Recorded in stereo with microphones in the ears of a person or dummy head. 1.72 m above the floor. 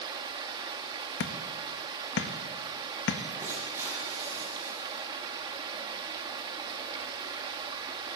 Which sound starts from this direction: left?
Hammering, at 1.2 s.